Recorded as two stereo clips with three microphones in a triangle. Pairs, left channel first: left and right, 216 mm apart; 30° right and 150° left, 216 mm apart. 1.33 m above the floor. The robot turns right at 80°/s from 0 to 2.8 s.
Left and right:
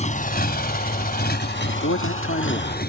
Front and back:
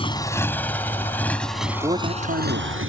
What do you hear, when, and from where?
0.0 s a motorcycle: 30° left; by 2.9 s 135° left
1.7 s a man speaking: 65° left; by 2.8 s 155° left